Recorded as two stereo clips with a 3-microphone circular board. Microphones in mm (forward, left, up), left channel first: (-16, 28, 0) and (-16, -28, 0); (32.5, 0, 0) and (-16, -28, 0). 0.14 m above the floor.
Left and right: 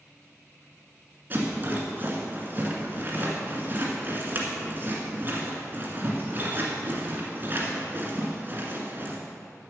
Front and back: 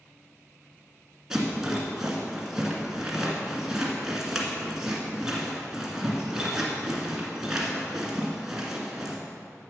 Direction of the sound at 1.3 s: 75° right.